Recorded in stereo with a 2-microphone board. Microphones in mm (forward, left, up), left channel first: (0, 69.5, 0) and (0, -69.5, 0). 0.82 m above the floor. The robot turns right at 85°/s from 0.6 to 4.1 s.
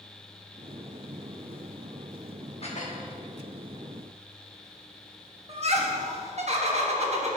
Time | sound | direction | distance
2.6 | dishes clattering | 45° left | 1.1 m
5.5 | laughter | 50° right (ahead or behind) | 1.4 m